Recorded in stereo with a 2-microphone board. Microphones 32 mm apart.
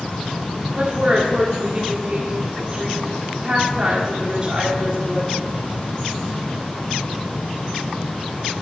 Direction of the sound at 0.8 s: 35° right (ahead or behind).